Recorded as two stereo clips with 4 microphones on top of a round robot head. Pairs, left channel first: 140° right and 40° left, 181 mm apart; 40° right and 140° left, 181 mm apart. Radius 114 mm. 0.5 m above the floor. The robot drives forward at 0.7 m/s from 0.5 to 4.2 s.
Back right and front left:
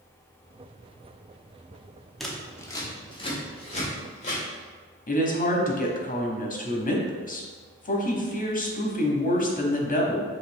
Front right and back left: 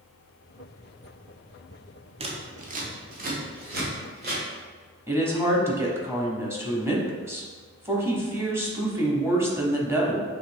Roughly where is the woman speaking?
Behind right.